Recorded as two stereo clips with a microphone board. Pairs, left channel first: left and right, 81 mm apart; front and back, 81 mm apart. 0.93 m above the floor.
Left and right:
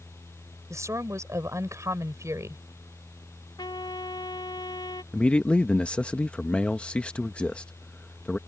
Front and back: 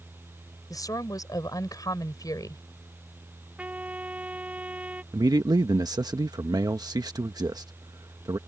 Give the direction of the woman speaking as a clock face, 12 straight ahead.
1 o'clock.